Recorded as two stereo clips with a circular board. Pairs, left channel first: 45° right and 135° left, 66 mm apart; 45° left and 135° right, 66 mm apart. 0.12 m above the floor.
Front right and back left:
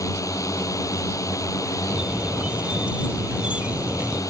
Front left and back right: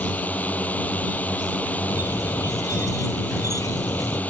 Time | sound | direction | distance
0.0 | a drone | 20° right | ?
1.9 | a squeak | 60° left | ?